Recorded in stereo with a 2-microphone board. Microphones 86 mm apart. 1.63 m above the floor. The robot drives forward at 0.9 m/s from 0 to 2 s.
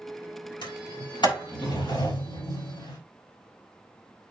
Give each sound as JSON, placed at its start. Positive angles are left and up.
{"t": 0.6, "sound": "a sliding door", "side_deg": 75, "distance_m": 4.5}